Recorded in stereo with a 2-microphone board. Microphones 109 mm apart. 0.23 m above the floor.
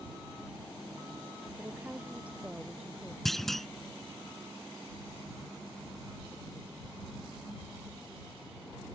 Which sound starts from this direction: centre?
A clunk, at 3.2 s.